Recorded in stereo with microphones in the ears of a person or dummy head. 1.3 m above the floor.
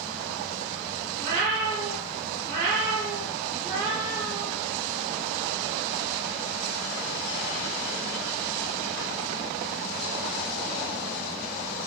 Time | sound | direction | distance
1.2 | a cat meowing | 65° right (ahead or behind) | 2 m